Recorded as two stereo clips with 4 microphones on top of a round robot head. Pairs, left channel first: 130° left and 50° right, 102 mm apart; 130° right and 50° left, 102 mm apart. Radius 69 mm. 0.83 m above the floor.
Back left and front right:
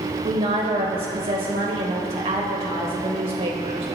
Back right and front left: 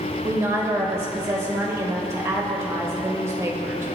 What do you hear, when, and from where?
0.2 s a woman speaking: 15° right, 3 m